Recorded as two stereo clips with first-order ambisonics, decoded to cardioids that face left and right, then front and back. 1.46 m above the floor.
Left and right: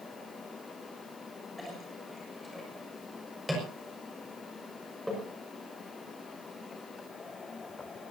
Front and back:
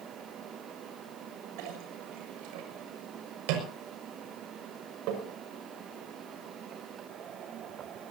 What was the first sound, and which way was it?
A clink, straight behind.